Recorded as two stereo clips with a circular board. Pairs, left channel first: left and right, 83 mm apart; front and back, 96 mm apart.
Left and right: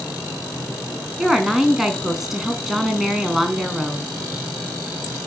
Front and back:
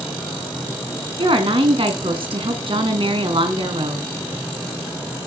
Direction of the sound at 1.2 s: 175° right.